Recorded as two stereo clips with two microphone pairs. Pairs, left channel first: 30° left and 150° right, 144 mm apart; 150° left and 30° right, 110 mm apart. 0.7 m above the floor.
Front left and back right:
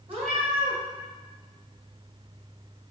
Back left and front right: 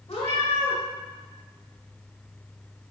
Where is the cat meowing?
170° left, 1.4 m.